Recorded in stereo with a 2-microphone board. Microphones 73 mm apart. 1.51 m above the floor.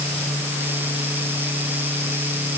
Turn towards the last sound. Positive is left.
No sound to turn to.